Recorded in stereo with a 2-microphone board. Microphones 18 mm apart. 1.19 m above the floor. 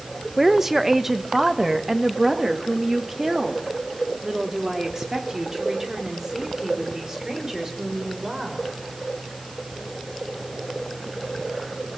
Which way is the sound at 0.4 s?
10° right (ahead or behind).